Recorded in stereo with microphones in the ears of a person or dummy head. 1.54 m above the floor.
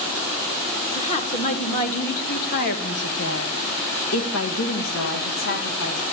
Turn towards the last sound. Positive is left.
turn(degrees=60)  # may be behind; listen again after turning